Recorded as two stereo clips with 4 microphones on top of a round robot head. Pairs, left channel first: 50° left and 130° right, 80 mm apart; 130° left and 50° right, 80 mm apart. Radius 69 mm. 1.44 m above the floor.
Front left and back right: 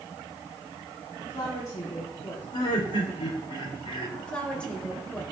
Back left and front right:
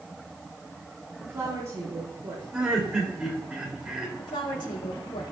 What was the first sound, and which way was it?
A woman speaking, 10° left.